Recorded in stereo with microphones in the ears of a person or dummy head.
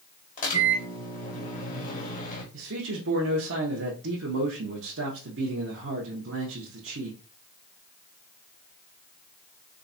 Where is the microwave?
40° left (ahead or behind), 0.9 m.